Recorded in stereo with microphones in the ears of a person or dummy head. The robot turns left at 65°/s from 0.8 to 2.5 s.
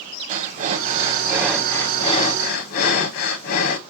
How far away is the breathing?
About 0.9 m.